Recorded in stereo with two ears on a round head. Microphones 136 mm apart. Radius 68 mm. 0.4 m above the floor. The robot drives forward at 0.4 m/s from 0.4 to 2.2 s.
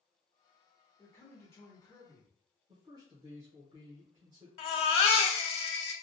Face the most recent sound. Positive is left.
turn(degrees=40)  # may be behind; listen again after turning